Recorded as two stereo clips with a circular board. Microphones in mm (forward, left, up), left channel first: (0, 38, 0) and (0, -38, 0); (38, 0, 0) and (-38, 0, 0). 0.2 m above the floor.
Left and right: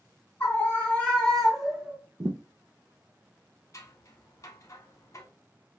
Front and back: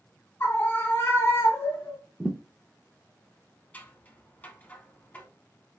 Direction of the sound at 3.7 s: 60° left.